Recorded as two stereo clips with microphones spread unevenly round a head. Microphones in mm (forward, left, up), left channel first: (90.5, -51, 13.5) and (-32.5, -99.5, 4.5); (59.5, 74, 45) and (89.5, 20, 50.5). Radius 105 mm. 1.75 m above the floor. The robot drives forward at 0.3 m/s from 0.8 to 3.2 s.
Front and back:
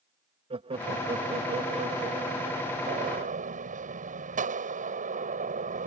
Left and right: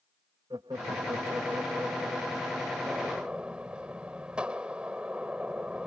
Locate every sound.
0.5 s laughter: 115° right; by 2.8 s 130° right
2.9 s a gunshot: 145° right